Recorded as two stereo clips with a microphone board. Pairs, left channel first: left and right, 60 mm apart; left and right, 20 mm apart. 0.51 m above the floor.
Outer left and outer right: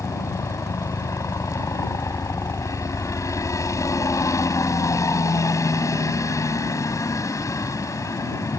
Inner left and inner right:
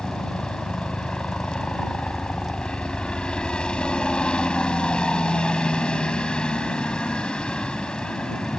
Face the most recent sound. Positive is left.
turn(degrees=60)  # may be behind; listen again after turning